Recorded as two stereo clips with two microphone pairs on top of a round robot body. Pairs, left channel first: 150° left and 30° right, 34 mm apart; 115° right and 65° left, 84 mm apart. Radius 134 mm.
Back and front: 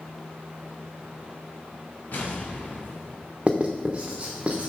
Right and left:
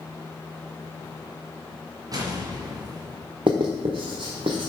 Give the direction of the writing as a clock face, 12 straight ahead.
11 o'clock.